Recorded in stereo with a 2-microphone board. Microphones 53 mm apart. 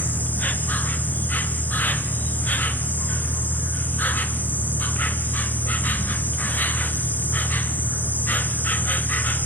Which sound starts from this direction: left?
An insect, at 0.0 s.